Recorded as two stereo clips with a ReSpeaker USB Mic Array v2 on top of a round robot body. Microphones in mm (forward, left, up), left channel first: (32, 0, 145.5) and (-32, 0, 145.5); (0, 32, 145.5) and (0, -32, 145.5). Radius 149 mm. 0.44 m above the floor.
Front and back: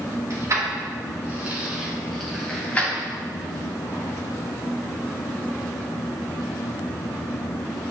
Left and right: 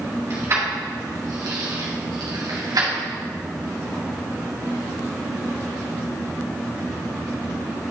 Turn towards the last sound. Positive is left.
turn(degrees=-60)